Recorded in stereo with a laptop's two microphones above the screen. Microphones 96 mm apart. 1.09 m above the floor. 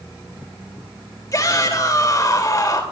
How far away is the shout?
About 2.5 m.